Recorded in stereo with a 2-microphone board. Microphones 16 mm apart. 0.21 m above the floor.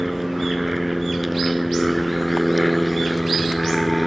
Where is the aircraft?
15° right (ahead or behind); by 4.1 s 5° right (ahead or behind).